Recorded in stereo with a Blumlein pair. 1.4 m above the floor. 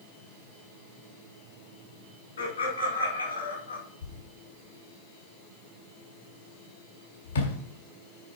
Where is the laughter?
70° left, 4.5 m; by 3.8 s 75° left, 5 m.